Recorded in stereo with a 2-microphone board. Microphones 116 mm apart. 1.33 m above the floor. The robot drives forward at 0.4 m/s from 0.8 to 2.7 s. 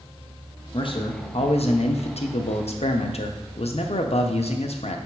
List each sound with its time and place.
0.7 s a man speaking: 50° left (ahead or behind), 0.9 m; by 5.0 s 70° left (ahead or behind), 0.8 m